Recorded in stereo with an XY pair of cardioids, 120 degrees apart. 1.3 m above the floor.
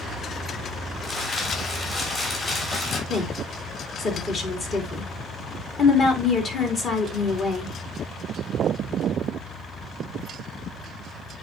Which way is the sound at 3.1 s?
50° left.